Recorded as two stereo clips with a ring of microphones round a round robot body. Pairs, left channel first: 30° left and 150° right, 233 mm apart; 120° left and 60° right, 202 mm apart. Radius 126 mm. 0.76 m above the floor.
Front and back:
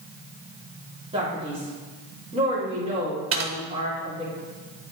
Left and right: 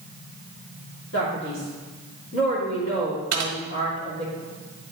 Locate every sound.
1.1 s a man speaking: 145° left, 2.5 m
3.3 s typing on a keyboard: 110° right, 1.2 m